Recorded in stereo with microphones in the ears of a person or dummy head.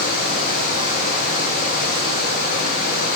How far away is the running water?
About 1.4 m.